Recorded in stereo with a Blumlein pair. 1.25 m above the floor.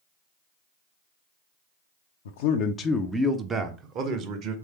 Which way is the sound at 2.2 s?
60° left.